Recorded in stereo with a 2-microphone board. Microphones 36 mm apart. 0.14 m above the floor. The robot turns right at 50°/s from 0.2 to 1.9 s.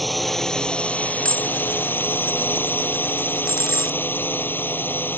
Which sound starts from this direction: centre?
Dishes clattering, at 1.2 s.